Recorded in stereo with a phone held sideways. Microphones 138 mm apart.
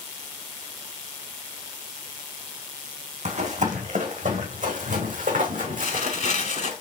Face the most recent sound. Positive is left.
turn(degrees=55)  # may be behind; listen again after turning